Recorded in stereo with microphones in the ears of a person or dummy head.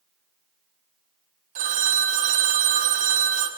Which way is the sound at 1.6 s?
40° right (ahead or behind).